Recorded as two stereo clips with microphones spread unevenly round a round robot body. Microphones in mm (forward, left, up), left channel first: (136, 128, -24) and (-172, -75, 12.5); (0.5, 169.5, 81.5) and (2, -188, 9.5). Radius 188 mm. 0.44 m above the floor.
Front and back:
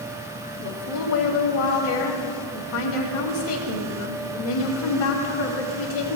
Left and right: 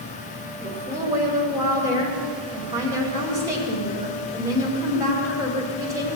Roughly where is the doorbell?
I don't hear a doorbell.